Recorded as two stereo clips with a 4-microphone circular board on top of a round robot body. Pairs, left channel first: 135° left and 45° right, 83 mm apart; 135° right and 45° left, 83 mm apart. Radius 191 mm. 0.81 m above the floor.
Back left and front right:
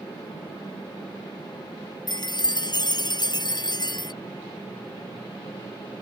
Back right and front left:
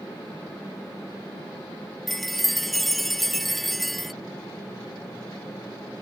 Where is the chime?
135° left.